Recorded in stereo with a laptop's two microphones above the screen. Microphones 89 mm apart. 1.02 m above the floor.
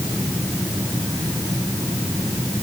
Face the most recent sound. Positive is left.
No sound to turn to.